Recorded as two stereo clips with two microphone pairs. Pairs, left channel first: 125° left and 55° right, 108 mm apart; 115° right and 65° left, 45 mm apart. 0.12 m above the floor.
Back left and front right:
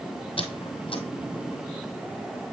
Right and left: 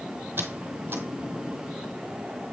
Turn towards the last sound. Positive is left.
turn(degrees=100)